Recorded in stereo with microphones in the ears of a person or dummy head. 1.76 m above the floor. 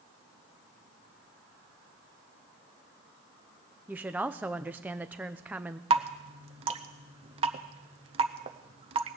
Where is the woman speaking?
10° right (ahead or behind), 0.8 m.